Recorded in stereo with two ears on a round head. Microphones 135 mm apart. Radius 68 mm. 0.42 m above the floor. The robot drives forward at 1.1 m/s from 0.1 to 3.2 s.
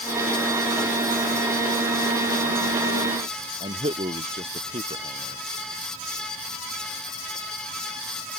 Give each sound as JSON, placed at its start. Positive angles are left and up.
{"t": 3.6, "sound": "a man speaking", "side_deg": -35}